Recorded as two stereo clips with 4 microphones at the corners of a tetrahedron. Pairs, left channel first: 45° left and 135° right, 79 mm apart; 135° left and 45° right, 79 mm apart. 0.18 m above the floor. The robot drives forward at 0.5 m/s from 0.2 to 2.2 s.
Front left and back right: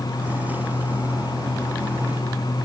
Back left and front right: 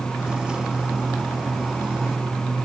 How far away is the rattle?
No rattle in this recording.